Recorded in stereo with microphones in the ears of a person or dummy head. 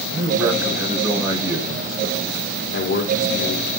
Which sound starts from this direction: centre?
A man speaking, at 0.1 s.